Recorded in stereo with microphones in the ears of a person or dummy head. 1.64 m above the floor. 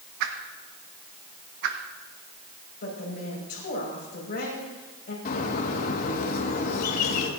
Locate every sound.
0.2 s a whoosh: 60° right (ahead or behind), 1.4 m
2.8 s a woman speaking: 55° left (ahead or behind), 5.5 m
5.2 s a bird: 50° left (ahead or behind), 1.9 m